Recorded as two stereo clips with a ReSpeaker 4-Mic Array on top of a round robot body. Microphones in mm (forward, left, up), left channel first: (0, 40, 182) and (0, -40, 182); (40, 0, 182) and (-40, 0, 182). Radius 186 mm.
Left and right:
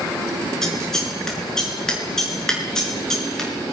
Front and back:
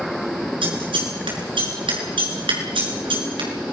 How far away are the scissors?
About 5.5 m.